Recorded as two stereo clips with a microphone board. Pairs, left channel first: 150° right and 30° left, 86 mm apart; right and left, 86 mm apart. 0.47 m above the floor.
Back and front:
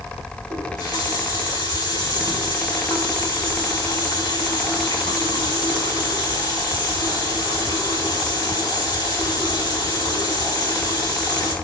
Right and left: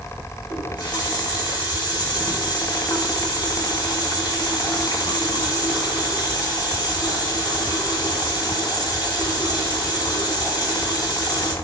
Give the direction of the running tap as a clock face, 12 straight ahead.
4 o'clock.